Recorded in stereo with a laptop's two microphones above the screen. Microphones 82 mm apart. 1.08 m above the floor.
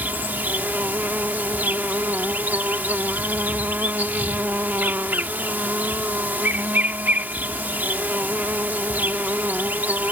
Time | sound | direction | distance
0.0 | an insect | 25° right (ahead or behind) | ?